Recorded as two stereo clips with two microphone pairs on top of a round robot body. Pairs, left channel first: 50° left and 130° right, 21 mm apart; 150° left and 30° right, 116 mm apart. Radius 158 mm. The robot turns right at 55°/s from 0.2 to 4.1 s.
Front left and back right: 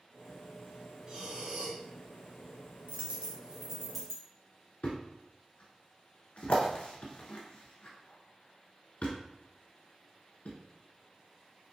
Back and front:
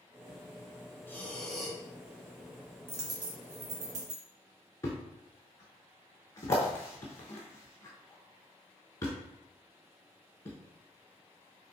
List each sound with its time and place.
1.1 s breathing: 160° right, 1.2 m; by 1.8 s 120° right, 1.2 m
2.9 s a dropped coin: 100° right, 0.6 m; by 4.2 s 35° right, 0.6 m
4.8 s a thud: 80° left, 0.6 m